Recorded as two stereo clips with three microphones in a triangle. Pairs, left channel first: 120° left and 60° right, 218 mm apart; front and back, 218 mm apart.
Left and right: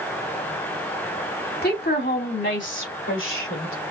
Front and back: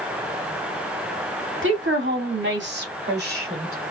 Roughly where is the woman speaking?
Behind.